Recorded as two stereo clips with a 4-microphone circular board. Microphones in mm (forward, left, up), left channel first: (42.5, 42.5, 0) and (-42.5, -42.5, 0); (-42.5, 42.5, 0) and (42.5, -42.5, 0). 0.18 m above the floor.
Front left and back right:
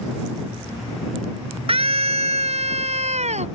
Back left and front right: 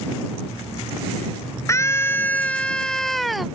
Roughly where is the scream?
Behind.